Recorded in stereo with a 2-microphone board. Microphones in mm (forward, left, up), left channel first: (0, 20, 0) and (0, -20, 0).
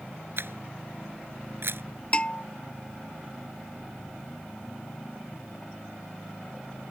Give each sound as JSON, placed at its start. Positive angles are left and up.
{"t": 0.4, "sound": "a camera shutter", "side_deg": -70}
{"t": 2.1, "sound": "a bell", "side_deg": 25}